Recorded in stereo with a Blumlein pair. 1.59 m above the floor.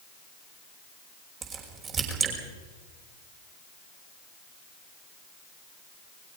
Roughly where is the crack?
Ahead right.